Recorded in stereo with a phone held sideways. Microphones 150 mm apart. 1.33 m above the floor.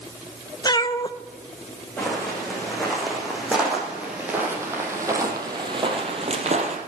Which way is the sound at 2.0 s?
5° left (ahead or behind).